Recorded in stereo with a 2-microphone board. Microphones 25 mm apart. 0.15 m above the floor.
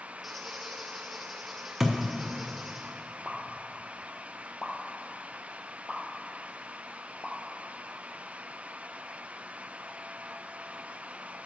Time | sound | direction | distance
0.2 | a squeak | centre (ahead or behind) | 2 m
1.8 | a thud | 10° right (ahead or behind) | 1.4 m
3.2 | a pop | 20° right (ahead or behind) | 1.0 m